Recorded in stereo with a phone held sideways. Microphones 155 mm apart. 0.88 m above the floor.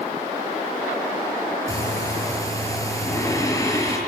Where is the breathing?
20° left (ahead or behind), 7 m.